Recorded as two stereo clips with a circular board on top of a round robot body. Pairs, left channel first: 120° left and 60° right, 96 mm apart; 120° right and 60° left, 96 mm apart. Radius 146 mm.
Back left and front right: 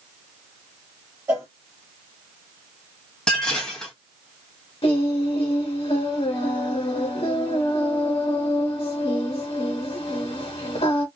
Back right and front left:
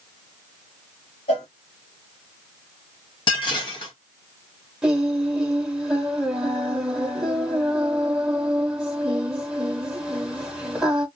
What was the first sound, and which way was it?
A cowbell, 130° right.